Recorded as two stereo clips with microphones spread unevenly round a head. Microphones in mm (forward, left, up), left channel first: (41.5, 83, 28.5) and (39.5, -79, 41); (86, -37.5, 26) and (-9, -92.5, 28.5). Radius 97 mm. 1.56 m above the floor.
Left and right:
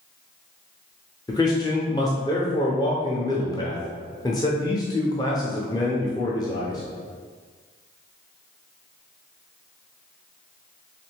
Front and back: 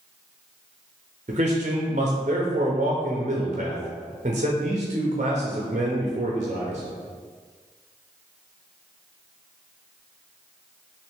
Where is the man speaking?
160° left, 0.5 m.